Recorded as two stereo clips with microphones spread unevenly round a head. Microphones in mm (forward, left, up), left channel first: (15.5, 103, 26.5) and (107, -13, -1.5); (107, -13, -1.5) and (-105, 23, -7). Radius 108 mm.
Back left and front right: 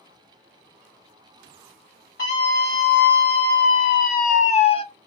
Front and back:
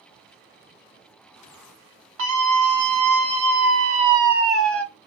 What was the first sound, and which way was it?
A scream, straight behind.